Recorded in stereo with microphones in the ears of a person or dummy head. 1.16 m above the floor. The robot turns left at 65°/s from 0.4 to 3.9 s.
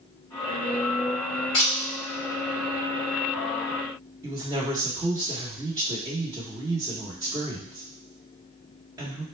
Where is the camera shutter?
25° left (ahead or behind), 1.1 m; by 1.7 s 30° left (ahead or behind), 1.1 m.